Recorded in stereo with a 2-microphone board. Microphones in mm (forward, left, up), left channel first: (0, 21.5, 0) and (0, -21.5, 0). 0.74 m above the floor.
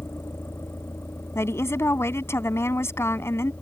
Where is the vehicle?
75° left (ahead or behind); by 3.6 s 55° left (ahead or behind).